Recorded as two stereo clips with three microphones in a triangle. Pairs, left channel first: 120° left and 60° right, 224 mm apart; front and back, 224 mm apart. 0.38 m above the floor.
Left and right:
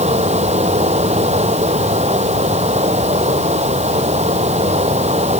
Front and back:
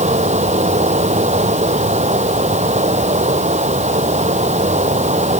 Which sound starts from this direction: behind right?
Running water, at 0.0 s.